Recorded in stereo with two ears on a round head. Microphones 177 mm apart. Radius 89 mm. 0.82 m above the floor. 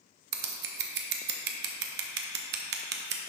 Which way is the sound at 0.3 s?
55° right (ahead or behind).